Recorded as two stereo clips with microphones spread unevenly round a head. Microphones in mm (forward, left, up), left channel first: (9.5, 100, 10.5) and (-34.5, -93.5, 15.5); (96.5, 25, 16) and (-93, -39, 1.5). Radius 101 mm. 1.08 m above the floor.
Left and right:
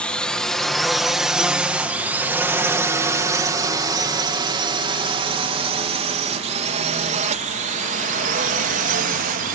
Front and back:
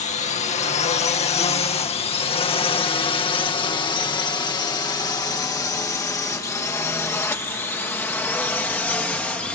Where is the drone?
Straight ahead; by 9.6 s 65° right.